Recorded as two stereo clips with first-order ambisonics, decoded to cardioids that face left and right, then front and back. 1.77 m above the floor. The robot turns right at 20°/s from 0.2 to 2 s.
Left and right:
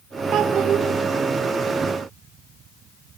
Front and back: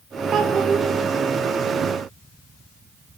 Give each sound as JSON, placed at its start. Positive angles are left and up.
{"t": 0.3, "sound": "a child speaking", "azimuth_deg": -135, "distance_m": 1.2}